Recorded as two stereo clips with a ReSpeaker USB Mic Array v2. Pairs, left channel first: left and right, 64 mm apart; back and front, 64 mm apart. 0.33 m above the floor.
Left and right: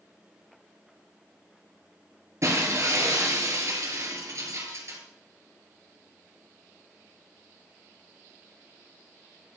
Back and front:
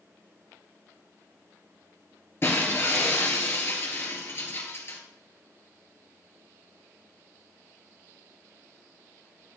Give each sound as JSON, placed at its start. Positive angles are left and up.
{"t": 2.4, "sound": "breaking glass", "azimuth_deg": -130, "distance_m": 3.0}